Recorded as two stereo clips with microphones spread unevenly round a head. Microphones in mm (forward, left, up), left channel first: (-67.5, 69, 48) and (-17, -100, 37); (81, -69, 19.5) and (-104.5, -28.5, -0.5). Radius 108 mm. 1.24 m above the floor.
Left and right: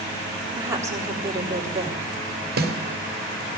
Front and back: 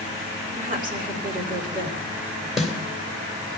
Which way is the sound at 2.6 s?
100° right.